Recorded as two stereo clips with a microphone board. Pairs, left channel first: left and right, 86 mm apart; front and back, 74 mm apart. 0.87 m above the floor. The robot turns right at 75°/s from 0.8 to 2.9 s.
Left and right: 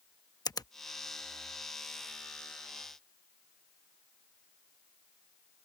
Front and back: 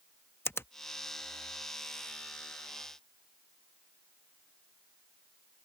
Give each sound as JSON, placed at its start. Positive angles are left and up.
{"t": 0.5, "sound": "a finger snap", "azimuth_deg": 55}